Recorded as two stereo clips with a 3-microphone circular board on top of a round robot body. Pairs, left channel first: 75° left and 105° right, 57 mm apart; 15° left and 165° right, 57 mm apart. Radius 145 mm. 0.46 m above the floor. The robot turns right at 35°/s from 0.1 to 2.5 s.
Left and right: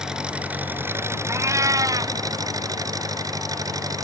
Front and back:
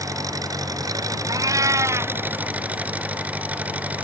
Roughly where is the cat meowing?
Behind right.